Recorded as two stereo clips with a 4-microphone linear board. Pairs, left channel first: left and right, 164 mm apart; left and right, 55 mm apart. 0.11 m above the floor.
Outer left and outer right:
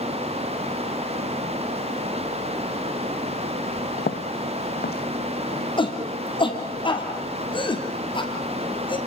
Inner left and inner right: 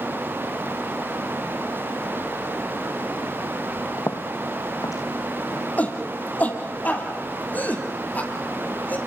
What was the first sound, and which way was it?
Footsteps, 85° left.